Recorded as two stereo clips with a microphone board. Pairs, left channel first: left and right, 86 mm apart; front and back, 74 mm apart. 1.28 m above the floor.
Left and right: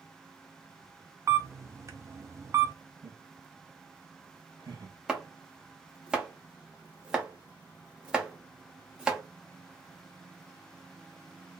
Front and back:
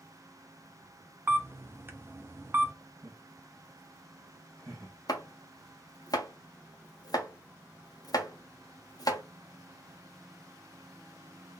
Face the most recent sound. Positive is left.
turn(degrees=-10)